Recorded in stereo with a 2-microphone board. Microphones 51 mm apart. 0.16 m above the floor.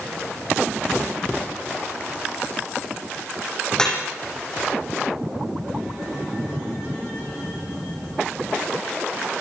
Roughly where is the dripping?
Centre.